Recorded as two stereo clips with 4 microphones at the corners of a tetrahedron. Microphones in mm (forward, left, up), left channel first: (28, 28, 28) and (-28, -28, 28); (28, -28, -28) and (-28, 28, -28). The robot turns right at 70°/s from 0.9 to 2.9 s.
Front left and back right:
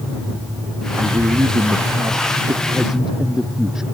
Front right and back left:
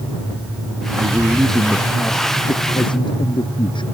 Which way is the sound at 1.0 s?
175° left.